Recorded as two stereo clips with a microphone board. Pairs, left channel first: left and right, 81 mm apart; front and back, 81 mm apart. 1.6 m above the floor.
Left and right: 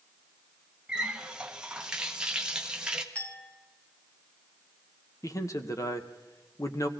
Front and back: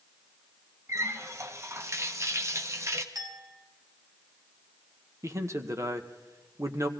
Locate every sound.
0.9 s a running tap: 165° right, 1.0 m
3.1 s a clink: 160° left, 2 m
5.2 s a man speaking: 135° left, 1.3 m